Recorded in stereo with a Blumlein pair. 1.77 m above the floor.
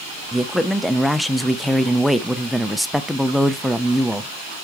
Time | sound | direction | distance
0.3 | a man speaking | straight ahead | 0.6 m